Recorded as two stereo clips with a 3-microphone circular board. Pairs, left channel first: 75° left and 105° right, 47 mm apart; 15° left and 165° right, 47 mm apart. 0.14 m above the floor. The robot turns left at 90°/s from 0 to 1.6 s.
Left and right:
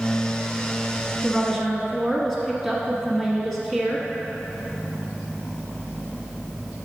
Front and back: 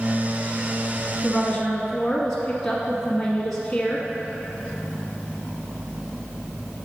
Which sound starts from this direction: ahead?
A woman speaking, at 1.2 s.